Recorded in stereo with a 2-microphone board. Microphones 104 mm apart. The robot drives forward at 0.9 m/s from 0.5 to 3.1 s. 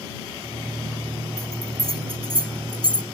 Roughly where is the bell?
Right.